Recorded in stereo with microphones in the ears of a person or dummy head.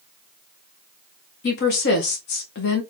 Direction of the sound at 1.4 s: 55° left (ahead or behind).